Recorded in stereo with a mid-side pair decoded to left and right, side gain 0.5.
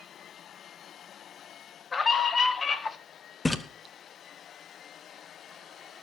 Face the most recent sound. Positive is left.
turn(degrees=20)